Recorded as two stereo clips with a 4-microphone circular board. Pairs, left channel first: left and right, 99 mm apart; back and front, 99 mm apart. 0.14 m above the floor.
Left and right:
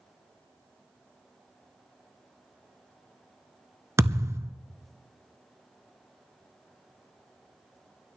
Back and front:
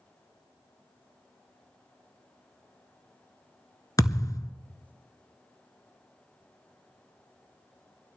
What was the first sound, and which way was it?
A thud, 140° right.